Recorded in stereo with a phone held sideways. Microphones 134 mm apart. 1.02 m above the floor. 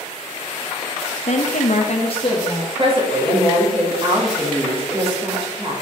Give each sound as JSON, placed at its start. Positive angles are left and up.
{"t": 1.3, "sound": "a woman speaking", "side_deg": 55, "distance_m": 0.9}
{"t": 2.8, "sound": "a woman speaking", "side_deg": -45, "distance_m": 2.5}